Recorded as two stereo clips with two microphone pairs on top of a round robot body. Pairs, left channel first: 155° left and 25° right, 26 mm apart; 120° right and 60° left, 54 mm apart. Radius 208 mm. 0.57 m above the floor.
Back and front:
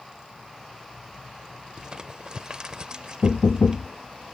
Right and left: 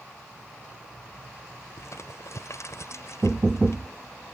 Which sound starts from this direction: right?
Crumpling, at 1.8 s.